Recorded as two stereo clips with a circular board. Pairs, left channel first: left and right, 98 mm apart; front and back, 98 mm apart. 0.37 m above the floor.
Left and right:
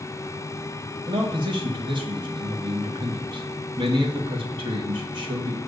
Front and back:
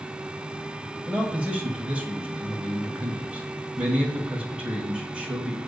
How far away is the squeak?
No squeak in this recording.